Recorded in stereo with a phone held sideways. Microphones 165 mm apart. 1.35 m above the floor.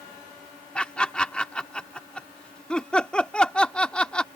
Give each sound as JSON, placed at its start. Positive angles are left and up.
{"t": 0.8, "sound": "laughter", "side_deg": 5}